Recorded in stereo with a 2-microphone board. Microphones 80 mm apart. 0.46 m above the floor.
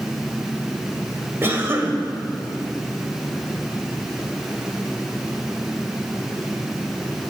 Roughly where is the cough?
Right.